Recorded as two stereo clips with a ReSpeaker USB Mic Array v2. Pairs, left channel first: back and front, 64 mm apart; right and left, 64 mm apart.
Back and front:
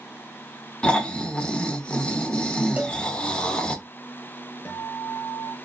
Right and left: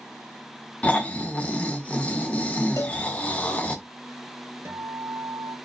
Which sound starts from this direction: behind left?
A guitar, at 4.7 s.